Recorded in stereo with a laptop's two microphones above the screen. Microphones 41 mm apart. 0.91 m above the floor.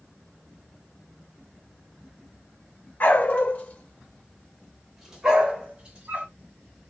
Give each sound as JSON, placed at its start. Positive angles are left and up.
{"t": 3.0, "sound": "a dog barking", "side_deg": 45, "distance_m": 0.9}